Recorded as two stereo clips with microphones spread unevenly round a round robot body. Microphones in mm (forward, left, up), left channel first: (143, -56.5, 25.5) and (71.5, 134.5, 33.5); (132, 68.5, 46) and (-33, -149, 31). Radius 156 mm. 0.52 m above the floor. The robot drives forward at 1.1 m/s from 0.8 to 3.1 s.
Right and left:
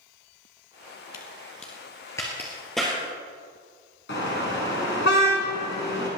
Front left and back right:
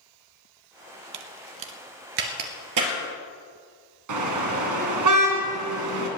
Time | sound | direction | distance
1.1 | a crack | 120° right | 1.1 m
4.1 | a car horn | 125° right | 3 m